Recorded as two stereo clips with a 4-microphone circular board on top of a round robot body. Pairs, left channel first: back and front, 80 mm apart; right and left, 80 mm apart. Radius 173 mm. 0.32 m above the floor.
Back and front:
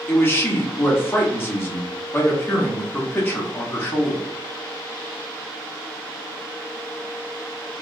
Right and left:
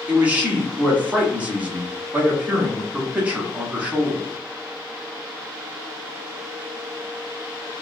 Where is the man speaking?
145° left, 1.3 m.